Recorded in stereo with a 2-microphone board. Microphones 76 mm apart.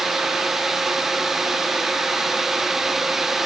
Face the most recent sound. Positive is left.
No sound to turn to.